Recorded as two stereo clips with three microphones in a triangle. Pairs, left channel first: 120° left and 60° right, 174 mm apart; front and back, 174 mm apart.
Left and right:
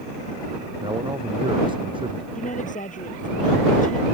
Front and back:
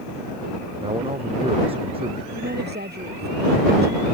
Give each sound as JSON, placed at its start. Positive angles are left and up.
{"t": 0.8, "sound": "a man speaking", "azimuth_deg": -125}
{"t": 2.4, "sound": "a woman speaking", "azimuth_deg": 160}